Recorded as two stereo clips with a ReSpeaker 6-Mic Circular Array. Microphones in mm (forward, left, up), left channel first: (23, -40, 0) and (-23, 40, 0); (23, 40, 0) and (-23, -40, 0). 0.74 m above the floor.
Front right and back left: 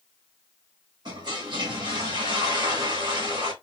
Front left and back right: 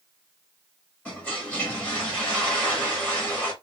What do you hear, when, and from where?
1.1 s a toilet flushing: 135° left, 1.4 m